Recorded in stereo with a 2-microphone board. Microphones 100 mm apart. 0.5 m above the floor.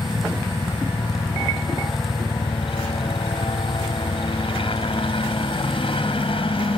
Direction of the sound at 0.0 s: 60° left (ahead or behind).